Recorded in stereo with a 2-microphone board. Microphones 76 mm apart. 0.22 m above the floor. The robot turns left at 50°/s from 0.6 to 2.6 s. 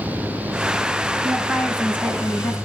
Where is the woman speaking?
175° right, 2.5 m; by 2.5 s 120° left, 2.5 m.